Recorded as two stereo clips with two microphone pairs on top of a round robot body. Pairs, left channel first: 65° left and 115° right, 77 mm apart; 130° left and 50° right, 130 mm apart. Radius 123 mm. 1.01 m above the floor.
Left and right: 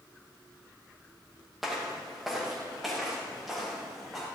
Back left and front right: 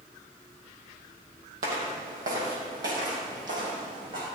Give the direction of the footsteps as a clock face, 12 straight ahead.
1 o'clock.